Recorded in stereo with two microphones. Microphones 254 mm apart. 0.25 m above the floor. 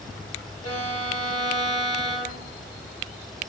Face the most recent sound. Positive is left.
turn(degrees=75)  # may be behind; listen again after turning